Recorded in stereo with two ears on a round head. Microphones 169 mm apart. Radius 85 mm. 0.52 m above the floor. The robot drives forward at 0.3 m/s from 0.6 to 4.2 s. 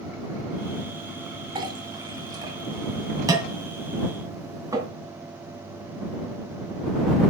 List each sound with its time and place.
1.6 s a clink: 25° right (ahead or behind), 2 m; by 4.9 s 20° right (ahead or behind), 3 m